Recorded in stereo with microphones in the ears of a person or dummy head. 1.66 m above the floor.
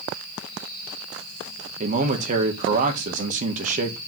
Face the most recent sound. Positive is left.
turn(degrees=-45)  # may be behind; listen again after turning